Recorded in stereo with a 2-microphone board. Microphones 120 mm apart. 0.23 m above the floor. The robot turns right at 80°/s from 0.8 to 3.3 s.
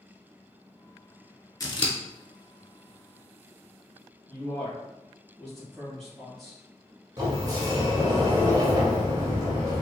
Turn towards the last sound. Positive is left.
turn(degrees=-40)  # may be behind; listen again after turning